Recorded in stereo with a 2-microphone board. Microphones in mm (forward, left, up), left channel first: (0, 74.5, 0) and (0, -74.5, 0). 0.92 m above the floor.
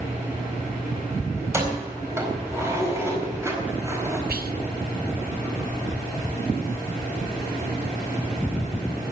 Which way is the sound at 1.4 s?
15° right (ahead or behind).